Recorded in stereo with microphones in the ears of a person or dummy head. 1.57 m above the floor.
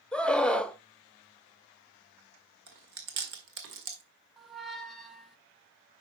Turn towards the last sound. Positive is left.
turn(degrees=0)  # may be behind; listen again after turning